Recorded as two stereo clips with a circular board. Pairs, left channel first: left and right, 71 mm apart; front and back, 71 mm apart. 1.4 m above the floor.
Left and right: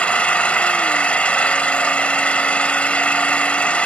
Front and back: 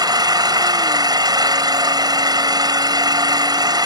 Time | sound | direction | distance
0.0 | an engine running | 165° left | ?